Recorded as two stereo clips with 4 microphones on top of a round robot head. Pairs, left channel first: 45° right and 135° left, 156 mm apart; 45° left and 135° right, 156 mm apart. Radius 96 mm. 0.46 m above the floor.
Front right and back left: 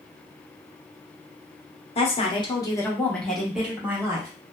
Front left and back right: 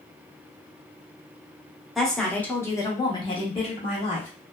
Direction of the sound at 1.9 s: 45° right.